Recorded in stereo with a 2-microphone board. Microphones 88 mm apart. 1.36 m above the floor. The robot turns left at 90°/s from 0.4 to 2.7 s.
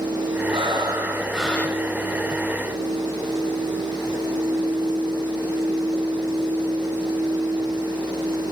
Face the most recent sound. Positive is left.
turn(degrees=65)